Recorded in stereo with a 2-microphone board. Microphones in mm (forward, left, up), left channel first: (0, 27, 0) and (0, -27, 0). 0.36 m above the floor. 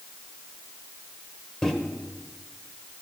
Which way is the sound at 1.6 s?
10° left (ahead or behind).